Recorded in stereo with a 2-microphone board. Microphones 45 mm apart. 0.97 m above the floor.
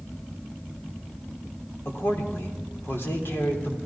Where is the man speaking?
60° left (ahead or behind), 3 m.